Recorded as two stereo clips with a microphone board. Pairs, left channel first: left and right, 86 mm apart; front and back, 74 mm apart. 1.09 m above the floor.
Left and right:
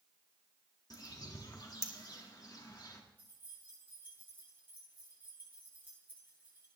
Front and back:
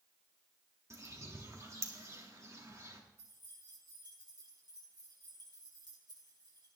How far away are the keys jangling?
About 8 m.